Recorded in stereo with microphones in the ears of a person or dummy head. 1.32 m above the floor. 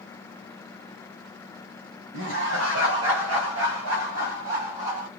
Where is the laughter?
75° right (ahead or behind), 1.4 m; by 5.1 s 45° right (ahead or behind), 1.7 m.